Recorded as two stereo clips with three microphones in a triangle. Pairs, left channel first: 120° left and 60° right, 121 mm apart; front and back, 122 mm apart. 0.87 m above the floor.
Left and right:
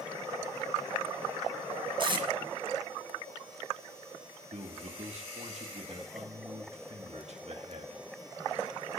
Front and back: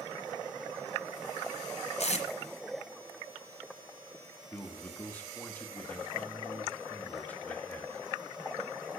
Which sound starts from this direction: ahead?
Tape being pulled, at 2.0 s.